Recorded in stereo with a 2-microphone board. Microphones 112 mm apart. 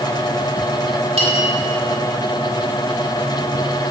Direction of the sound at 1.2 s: 65° right (ahead or behind).